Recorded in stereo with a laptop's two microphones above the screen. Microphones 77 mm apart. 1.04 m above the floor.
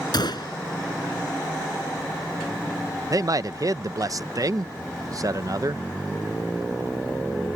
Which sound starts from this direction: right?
A man speaking, at 3.1 s.